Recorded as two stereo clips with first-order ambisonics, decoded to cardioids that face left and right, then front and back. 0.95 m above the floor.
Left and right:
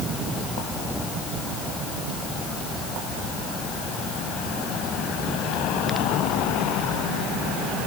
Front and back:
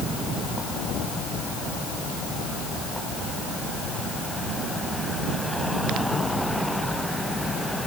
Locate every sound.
Only background noise.